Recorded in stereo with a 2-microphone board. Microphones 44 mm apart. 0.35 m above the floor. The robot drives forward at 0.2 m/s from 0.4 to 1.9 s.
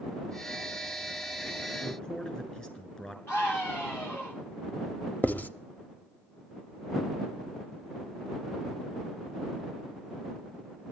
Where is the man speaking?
25° left (ahead or behind), 3 m.